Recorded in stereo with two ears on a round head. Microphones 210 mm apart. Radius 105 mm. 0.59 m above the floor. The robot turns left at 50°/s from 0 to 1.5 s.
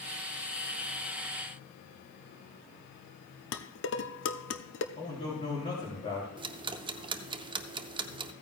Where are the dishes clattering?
55° left (ahead or behind), 0.7 m.